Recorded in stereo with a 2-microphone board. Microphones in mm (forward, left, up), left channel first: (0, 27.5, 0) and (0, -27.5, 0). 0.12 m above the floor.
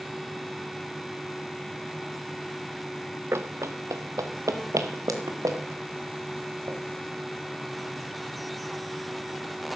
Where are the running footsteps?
50° right (ahead or behind), 0.7 m; by 6.8 s 85° right, 3 m.